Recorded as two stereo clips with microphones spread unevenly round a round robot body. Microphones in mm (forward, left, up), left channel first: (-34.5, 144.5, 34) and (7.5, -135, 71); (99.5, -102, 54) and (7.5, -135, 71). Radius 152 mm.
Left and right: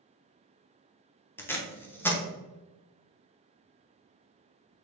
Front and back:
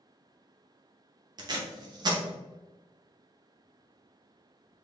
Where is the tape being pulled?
170° left, 0.8 m.